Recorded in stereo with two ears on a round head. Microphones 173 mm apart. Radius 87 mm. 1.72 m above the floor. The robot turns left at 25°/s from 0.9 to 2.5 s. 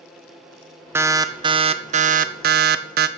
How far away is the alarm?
About 1.1 m.